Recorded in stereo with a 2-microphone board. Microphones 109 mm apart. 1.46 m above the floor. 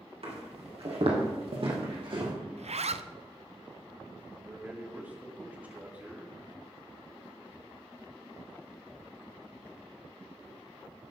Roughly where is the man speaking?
Centre.